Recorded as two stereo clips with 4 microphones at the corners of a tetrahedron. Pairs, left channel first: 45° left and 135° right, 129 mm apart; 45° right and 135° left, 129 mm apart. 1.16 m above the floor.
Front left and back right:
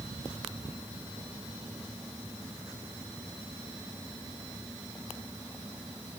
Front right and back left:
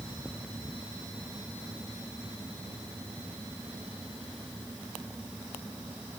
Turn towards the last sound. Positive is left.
No sound to turn to.